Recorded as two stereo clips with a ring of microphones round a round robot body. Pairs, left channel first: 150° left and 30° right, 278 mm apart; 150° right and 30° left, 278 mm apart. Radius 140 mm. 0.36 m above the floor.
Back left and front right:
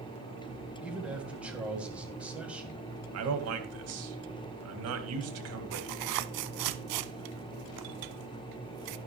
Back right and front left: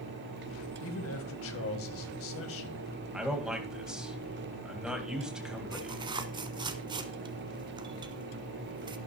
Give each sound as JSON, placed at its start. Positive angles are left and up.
{"t": 0.8, "sound": "a man speaking", "azimuth_deg": -115, "distance_m": 1.9}
{"t": 3.1, "sound": "a man speaking", "azimuth_deg": -55, "distance_m": 2.0}
{"t": 5.7, "sound": "tearing paper", "azimuth_deg": -45, "distance_m": 0.7}